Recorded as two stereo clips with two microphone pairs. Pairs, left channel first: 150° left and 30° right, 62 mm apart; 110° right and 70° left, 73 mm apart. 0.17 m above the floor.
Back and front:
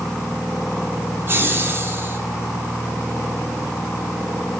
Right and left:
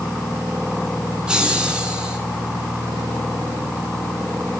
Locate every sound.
1.3 s laughter: 5° right, 1.7 m